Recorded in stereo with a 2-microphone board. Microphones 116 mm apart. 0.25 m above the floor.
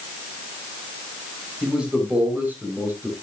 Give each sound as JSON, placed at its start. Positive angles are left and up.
{"t": 1.6, "sound": "a man speaking", "side_deg": -10, "distance_m": 5.5}